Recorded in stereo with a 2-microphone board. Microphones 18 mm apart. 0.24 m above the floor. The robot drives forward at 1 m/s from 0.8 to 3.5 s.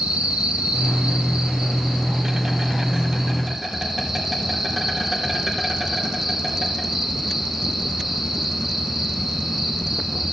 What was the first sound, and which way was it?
An insect, 80° right.